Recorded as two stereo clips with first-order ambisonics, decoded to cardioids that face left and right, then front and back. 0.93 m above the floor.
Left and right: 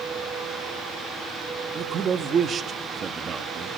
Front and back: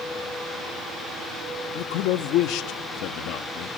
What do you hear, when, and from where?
1.8 s a man speaking: 25° right, 1.2 m